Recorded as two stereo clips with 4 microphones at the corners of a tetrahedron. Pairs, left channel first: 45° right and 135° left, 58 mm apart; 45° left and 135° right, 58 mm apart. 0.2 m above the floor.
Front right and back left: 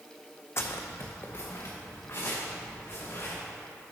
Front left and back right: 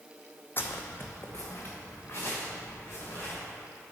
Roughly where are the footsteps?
Ahead.